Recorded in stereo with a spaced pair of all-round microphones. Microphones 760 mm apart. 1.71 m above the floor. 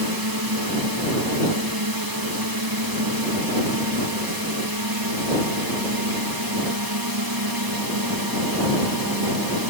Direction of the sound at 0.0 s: 30° right (ahead or behind).